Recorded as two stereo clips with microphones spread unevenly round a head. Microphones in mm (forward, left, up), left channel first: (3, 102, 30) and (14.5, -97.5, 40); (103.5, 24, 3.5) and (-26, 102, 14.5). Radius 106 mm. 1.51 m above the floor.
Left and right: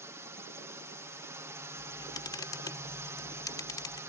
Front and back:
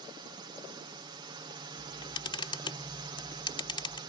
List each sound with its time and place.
0.0 s a drone: 160° right
1.8 s a camera shutter: 25° left